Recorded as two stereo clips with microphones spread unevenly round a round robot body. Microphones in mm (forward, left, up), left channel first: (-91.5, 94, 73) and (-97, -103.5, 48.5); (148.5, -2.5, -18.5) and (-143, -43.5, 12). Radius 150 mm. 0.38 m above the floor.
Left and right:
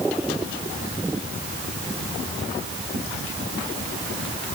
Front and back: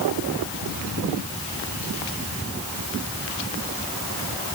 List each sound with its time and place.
Only background noise.